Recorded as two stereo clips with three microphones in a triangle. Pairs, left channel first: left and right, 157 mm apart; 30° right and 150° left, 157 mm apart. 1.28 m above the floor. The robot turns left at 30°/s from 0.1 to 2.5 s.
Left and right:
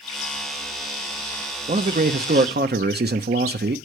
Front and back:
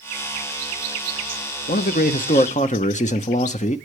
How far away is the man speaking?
About 0.7 m.